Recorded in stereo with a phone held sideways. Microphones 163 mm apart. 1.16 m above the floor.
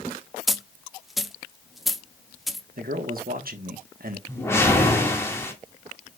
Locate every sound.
0.5 s a dropped coin: centre (ahead or behind), 0.8 m
2.8 s a man speaking: 60° right (ahead or behind), 1.3 m
4.3 s a whoosh: 15° left (ahead or behind), 2 m